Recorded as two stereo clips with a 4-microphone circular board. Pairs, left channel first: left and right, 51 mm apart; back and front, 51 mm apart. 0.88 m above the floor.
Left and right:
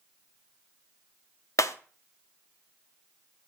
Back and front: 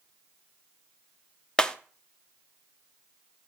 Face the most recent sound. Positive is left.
turn(degrees=105)